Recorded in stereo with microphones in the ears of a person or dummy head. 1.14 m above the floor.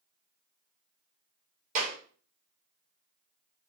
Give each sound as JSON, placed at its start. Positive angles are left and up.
{"t": 1.8, "sound": "a clap", "side_deg": -40, "distance_m": 1.5}